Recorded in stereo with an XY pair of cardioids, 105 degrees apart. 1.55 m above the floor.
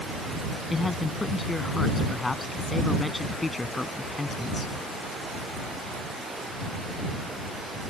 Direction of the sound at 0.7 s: 15° left.